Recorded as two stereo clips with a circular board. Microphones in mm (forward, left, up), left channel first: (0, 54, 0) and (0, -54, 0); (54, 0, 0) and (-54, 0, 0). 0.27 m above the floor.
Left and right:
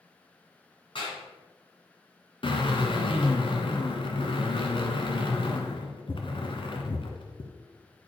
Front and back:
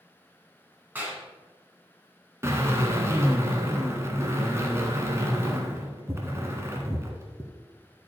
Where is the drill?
120° left, 1.4 m.